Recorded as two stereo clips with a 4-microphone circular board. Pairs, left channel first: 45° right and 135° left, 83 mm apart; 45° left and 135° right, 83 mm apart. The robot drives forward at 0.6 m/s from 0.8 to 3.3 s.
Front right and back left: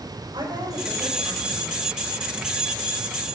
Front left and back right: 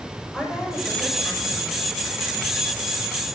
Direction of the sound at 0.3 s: 140° left.